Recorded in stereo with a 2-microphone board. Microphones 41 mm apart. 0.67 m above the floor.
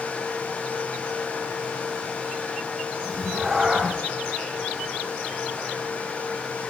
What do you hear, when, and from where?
3.0 s a cat meowing: 5° left (ahead or behind), 2.5 m